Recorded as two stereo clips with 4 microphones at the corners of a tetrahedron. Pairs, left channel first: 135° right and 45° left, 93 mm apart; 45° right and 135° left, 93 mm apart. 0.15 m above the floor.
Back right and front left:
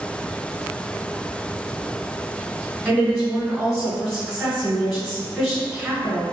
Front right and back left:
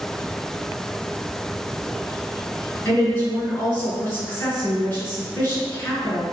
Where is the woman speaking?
40° right, 1.6 m.